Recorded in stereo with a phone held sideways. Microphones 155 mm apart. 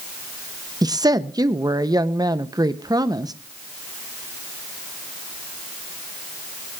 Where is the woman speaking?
25° right (ahead or behind), 0.7 m.